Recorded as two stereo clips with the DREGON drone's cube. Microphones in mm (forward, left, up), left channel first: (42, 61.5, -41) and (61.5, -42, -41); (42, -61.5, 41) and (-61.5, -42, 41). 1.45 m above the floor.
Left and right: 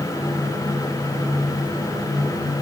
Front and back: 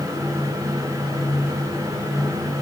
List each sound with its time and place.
Only background noise.